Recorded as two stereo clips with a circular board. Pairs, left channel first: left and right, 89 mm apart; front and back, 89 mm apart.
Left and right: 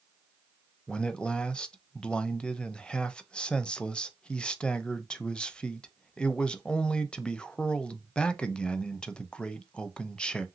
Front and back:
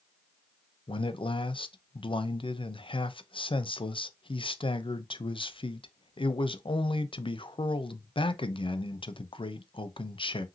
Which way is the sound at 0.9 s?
10° left.